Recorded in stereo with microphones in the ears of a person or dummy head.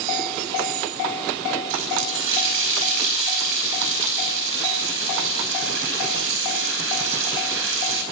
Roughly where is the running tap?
Right.